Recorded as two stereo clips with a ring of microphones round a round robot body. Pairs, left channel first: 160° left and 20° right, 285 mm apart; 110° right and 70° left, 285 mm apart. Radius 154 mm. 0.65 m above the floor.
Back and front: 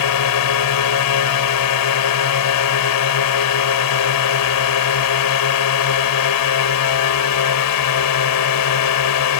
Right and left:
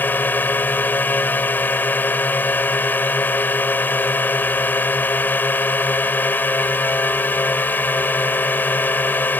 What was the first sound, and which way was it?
A drone, 165° left.